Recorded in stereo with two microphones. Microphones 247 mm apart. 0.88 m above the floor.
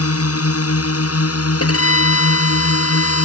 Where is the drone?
70° left (ahead or behind).